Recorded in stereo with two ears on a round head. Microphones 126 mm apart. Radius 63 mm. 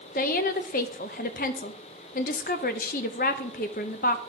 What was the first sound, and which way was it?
A woman speaking, 60° left (ahead or behind).